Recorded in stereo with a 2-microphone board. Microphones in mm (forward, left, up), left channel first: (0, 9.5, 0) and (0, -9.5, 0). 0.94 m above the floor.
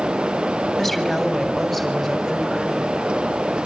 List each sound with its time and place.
0.8 s a woman speaking: centre (ahead or behind), 3.5 m; by 2.9 s 20° right (ahead or behind), 5.5 m